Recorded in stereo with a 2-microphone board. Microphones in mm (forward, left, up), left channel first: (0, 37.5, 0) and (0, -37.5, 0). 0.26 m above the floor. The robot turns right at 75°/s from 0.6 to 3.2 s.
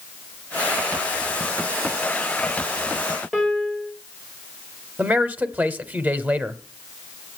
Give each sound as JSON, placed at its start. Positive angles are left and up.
{"t": 3.3, "sound": "a piano", "side_deg": -10, "distance_m": 4.0}
{"t": 5.0, "sound": "a man speaking", "side_deg": -25, "distance_m": 1.0}